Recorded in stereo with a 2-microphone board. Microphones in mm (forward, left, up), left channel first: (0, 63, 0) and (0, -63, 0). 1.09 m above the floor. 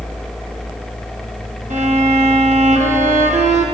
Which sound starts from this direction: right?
A violin, at 1.7 s.